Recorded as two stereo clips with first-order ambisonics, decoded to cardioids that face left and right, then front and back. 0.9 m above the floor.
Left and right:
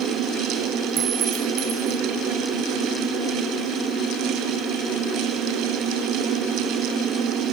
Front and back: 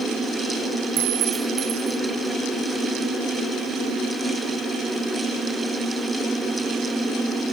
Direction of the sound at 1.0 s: 145° right.